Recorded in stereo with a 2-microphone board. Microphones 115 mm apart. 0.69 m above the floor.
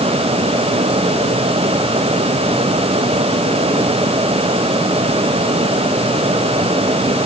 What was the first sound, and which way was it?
Only background noise.